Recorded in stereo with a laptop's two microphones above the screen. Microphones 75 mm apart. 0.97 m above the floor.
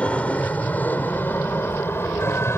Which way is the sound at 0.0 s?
15° left (ahead or behind).